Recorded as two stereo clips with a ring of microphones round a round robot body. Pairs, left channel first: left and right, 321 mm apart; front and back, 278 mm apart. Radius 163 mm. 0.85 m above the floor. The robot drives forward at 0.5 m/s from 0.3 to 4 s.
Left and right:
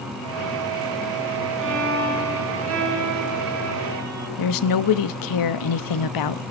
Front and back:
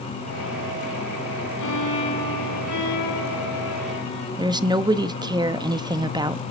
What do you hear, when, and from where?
1.6 s a violin: 35° right, 5 m; by 4.3 s 45° right, 4 m
4.4 s a woman speaking: 105° left, 1.0 m